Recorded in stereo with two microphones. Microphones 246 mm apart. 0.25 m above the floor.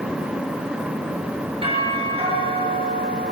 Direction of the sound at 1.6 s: 20° right (ahead or behind).